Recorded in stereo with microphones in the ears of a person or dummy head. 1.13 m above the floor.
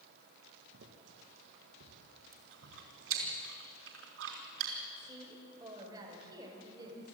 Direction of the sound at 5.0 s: 20° right (ahead or behind).